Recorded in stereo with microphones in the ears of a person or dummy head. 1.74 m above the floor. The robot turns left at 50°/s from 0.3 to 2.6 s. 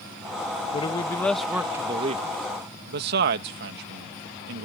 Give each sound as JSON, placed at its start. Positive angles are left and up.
{"t": 0.7, "sound": "a man speaking", "azimuth_deg": 35}